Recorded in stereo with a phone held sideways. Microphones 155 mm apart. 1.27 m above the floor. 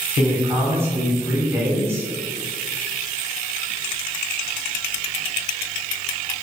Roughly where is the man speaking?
Centre.